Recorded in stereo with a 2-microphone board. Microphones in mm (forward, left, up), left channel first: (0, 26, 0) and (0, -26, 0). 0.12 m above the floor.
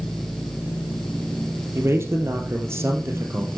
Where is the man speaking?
55° right (ahead or behind), 2.5 m.